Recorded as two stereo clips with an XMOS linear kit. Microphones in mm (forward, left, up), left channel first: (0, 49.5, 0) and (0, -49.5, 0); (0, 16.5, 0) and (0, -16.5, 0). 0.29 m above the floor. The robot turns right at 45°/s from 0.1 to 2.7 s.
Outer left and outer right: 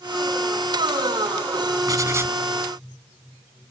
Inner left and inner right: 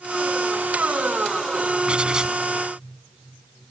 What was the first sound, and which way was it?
Writing, 40° right (ahead or behind).